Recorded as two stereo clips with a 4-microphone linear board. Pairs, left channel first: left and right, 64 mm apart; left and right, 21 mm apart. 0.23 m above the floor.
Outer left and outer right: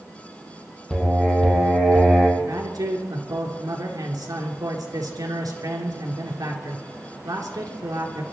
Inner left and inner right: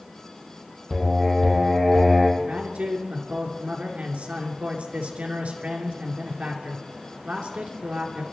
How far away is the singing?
About 5 m.